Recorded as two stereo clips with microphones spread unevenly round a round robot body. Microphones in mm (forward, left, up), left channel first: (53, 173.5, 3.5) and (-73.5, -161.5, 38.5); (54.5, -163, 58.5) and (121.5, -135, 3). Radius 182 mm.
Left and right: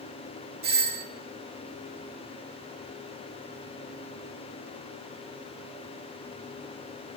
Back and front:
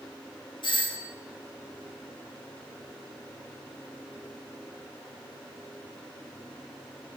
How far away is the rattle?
No rattle in this recording.